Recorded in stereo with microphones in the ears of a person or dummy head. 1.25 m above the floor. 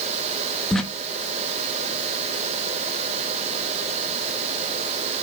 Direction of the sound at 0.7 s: 5° left (ahead or behind).